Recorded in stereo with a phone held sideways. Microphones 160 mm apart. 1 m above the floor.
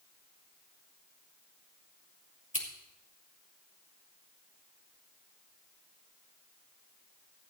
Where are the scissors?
50° left (ahead or behind), 2 m.